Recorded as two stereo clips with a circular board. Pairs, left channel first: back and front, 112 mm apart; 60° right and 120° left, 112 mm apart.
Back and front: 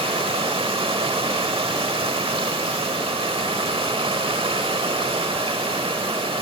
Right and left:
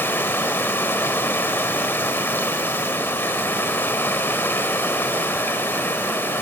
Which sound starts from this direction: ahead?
Running water, at 0.0 s.